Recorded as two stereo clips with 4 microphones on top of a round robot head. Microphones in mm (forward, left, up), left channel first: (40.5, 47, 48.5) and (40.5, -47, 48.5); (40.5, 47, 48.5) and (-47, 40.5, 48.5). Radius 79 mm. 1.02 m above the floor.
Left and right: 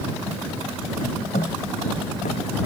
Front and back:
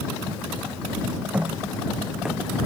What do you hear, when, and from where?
1.3 s footsteps: 110° left; by 2.4 s 100° left